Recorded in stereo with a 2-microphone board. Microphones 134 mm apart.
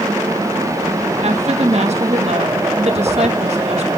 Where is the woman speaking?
50° right (ahead or behind), 1.6 m.